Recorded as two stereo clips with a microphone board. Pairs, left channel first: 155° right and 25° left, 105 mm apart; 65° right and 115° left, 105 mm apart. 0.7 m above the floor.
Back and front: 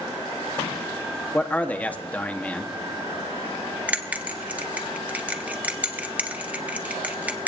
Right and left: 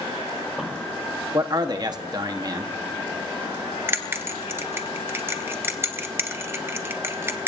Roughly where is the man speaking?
Behind left.